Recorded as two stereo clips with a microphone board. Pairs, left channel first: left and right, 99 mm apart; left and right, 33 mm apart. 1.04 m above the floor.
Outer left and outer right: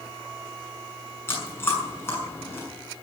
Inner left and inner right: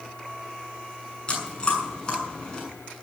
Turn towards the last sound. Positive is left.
turn(degrees=25)  # may be behind; listen again after turning